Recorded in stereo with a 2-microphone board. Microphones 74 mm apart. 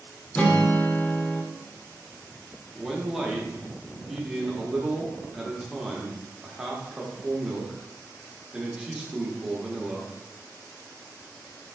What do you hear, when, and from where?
0.3 s a guitar: 20° left (ahead or behind), 0.5 m
2.8 s a man speaking: 5° right (ahead or behind), 0.7 m